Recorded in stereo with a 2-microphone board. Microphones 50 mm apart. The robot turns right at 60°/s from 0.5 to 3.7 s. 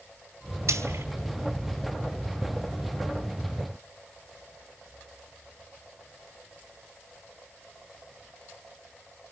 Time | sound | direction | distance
0.7 | frying | 75° right (ahead or behind) | 4 m